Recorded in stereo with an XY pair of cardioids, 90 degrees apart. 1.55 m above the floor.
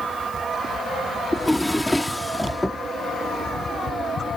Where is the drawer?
Straight ahead.